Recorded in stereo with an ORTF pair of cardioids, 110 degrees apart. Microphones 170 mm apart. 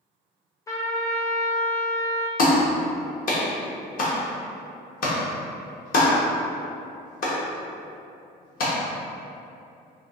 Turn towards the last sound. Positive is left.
turn(degrees=55)